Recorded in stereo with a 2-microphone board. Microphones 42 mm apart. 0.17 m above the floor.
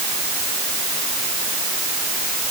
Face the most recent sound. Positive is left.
No sound to turn to.